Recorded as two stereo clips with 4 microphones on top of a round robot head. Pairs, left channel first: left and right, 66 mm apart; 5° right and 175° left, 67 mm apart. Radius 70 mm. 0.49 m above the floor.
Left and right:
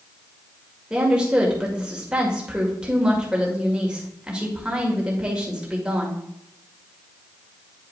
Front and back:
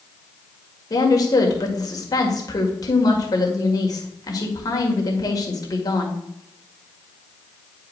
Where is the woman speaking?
15° right, 1.9 m.